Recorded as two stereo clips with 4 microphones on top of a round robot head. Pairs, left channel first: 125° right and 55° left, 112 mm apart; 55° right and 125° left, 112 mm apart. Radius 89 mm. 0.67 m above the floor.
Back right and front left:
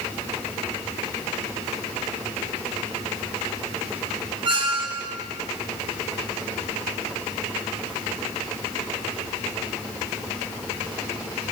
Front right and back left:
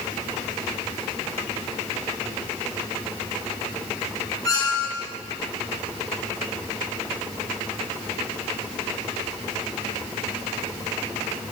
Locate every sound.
4.5 s a squeak: 5° left, 1.9 m